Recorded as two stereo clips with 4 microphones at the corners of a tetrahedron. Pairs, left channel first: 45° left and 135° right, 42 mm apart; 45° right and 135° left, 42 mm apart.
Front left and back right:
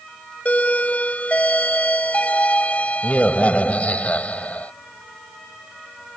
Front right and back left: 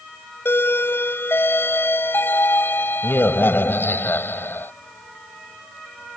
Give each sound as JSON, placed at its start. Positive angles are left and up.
{"t": 0.5, "sound": "a doorbell", "azimuth_deg": -10}